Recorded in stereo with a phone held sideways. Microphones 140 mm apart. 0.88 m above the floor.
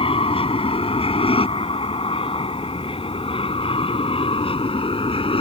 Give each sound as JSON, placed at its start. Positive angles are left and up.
{"t": 0.0, "sound": "an aircraft", "side_deg": 45}